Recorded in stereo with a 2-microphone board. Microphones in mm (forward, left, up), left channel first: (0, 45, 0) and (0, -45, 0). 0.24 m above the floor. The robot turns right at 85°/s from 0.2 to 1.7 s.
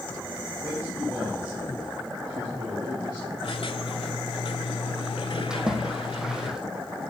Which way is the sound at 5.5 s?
10° right (ahead or behind).